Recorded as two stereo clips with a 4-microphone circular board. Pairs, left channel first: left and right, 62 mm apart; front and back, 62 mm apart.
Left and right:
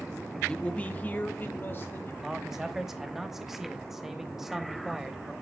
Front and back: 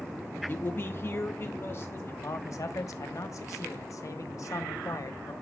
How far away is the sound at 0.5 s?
About 0.7 m.